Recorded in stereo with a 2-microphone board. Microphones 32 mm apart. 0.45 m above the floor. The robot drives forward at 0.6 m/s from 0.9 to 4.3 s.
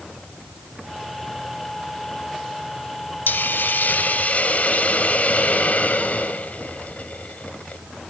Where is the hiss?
70° left (ahead or behind), 0.6 m; by 7.8 s 55° left (ahead or behind), 0.8 m.